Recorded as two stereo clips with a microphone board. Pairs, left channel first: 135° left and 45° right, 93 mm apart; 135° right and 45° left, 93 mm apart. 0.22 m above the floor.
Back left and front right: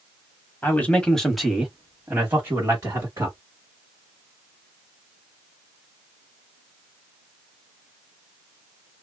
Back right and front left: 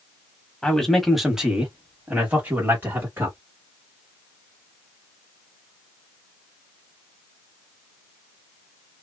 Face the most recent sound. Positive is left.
turn(degrees=-5)